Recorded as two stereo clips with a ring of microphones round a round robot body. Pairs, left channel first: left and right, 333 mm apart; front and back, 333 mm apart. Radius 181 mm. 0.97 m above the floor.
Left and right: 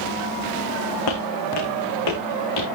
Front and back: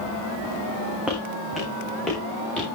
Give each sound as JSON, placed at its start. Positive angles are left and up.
{"t": 1.1, "sound": "footsteps", "azimuth_deg": 90, "distance_m": 3.5}